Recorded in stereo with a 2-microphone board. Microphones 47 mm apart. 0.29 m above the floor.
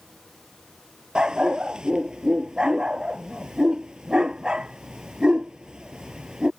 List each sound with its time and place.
1.1 s a dog barking: 20° right (ahead or behind)